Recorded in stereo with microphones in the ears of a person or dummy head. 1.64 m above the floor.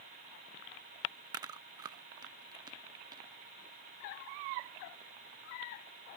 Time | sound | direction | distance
1.3 | chewing | 20° right (ahead or behind) | ?